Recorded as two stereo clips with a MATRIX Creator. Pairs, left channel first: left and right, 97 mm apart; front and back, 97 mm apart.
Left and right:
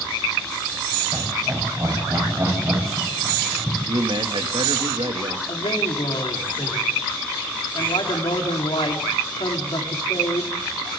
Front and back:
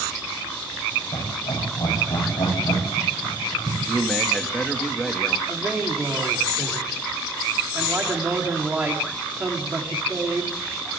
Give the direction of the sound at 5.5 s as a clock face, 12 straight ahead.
8 o'clock.